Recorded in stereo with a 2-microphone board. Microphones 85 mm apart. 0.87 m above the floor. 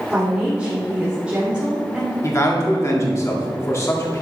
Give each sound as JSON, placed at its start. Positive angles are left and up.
{"t": 0.1, "sound": "a woman speaking", "side_deg": -15, "distance_m": 2.0}
{"t": 2.2, "sound": "a man speaking", "side_deg": 35, "distance_m": 1.8}